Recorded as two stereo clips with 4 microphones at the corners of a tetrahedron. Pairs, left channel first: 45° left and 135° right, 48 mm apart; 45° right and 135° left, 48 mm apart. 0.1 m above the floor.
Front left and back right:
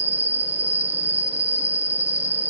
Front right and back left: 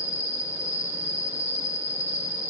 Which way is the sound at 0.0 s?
175° left.